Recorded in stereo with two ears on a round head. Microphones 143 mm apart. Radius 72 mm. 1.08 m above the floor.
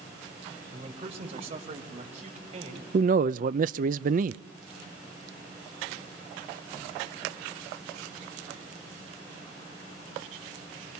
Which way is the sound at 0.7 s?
35° right (ahead or behind).